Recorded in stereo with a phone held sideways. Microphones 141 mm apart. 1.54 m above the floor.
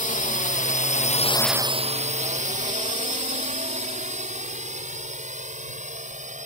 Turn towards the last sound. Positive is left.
turn(degrees=-65)  # may be behind; listen again after turning